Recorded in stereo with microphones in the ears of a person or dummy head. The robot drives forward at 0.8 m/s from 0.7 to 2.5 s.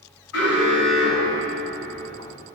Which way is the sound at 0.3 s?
80° left.